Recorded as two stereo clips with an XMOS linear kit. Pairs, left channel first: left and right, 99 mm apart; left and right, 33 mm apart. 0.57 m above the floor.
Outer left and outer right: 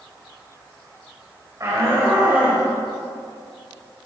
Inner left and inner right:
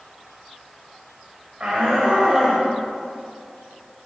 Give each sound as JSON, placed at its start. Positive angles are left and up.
{"t": 1.6, "sound": "a shout", "side_deg": -30, "distance_m": 2.5}